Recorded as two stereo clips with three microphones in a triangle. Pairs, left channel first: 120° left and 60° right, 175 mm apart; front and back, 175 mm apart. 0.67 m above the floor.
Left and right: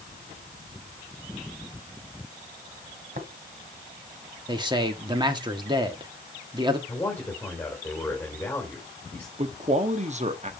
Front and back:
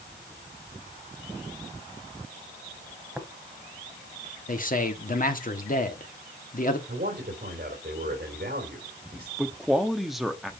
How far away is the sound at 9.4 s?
About 0.8 m.